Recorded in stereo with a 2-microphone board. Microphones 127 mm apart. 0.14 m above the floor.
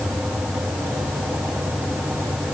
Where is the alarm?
I don't hear an alarm.